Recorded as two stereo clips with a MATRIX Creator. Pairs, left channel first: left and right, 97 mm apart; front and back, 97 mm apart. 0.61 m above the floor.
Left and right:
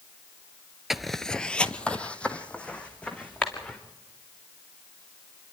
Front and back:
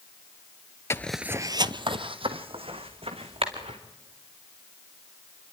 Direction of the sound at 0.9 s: 5° right.